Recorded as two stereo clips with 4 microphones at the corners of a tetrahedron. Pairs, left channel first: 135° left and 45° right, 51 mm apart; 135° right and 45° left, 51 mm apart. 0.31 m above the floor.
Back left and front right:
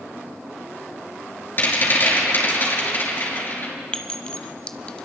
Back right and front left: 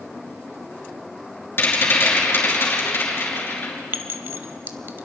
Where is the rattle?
Straight behind, 5 m.